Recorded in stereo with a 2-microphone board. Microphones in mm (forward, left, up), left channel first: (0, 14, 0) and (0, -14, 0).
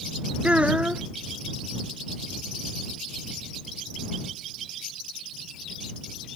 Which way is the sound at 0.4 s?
50° right (ahead or behind).